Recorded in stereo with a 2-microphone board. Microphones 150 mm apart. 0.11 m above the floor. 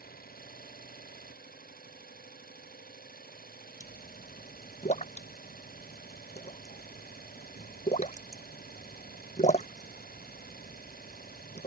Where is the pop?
50° left (ahead or behind).